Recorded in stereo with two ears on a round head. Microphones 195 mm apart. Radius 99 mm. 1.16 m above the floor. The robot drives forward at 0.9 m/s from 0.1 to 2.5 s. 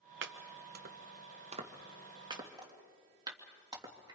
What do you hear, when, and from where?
0.2 s chopping: 55° right (ahead or behind), 0.9 m; by 4.2 s 20° right (ahead or behind), 2.5 m